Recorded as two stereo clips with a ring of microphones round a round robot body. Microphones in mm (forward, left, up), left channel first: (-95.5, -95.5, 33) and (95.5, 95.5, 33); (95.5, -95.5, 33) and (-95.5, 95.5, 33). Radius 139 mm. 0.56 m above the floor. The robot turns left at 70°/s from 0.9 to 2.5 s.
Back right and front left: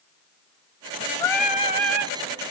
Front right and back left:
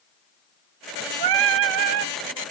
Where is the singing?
150° left, 0.9 m; by 2.1 s 80° left, 0.9 m.